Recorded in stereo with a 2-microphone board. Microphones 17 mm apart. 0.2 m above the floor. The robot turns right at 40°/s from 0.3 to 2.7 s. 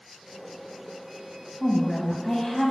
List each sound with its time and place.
1.6 s a woman speaking: 5° left (ahead or behind), 1.0 m; by 2.7 s 15° left (ahead or behind), 1.0 m